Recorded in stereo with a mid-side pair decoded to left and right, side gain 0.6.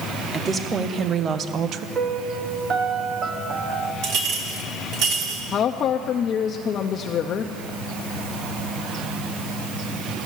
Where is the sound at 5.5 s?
50° left, 0.6 m.